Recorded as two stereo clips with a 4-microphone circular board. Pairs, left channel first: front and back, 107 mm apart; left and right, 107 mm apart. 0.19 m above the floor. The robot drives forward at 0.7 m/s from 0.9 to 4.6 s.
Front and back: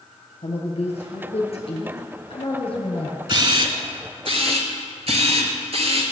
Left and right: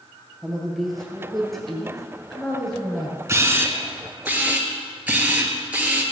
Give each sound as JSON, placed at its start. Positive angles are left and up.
{"t": 0.4, "sound": "a woman speaking", "azimuth_deg": 0, "distance_m": 3.0}
{"t": 3.3, "sound": "a camera shutter", "azimuth_deg": -145, "distance_m": 0.9}